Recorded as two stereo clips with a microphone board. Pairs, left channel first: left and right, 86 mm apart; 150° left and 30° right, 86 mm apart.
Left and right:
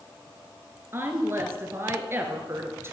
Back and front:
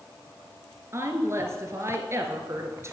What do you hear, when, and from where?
0.9 s a woman speaking: 55° right, 1.5 m